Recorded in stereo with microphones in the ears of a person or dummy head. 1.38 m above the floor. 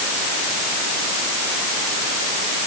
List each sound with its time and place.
Only background noise.